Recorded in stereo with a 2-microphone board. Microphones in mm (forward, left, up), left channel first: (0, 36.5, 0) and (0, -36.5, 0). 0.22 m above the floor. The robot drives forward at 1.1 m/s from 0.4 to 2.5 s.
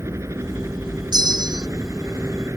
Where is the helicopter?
40° right (ahead or behind).